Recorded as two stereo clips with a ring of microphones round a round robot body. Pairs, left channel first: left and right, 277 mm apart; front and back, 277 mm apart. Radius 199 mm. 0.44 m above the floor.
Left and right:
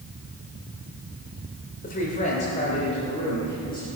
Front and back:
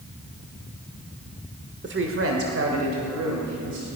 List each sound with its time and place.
1.8 s a woman speaking: 145° left, 1.5 m; by 3.9 s 165° left, 3.5 m